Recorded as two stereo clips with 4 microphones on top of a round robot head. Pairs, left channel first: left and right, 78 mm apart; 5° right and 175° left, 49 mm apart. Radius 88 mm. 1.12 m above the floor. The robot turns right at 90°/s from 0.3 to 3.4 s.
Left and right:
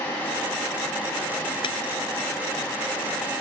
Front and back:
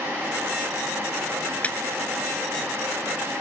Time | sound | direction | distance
1.6 | a clap | 60° left | ?